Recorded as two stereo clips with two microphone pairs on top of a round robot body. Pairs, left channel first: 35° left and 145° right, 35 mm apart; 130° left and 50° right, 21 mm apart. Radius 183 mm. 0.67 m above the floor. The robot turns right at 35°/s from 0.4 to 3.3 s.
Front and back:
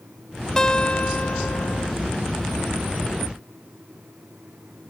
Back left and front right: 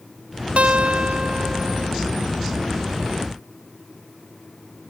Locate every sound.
0.6 s a guitar: 40° right; by 1.9 s 10° left